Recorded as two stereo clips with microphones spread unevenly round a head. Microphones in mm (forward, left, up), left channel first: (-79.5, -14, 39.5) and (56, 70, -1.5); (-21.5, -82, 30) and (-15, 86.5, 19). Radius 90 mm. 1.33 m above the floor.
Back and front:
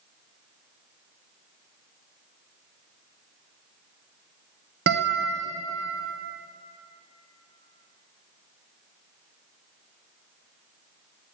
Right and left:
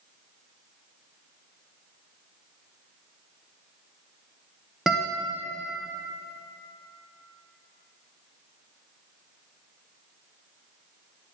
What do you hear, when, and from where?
4.9 s a guitar: straight ahead, 0.7 m